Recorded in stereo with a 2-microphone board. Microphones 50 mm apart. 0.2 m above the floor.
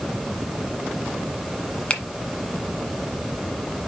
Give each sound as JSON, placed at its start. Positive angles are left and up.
{"t": 1.9, "sound": "a finger snap", "side_deg": 25, "distance_m": 1.2}